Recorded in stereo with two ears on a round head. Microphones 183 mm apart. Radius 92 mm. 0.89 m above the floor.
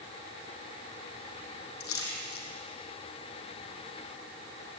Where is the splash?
80° left, 6 m.